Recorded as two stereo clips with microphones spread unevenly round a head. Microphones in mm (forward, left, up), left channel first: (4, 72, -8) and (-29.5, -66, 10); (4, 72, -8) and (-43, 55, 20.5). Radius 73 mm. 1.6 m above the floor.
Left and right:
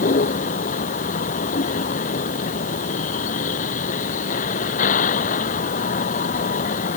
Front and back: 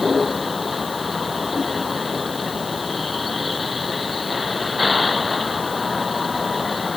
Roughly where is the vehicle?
Left.